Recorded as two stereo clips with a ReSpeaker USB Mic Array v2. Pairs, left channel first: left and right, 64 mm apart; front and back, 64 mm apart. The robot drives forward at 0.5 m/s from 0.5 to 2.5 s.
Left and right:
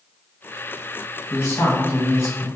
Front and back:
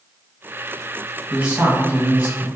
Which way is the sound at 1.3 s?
105° left.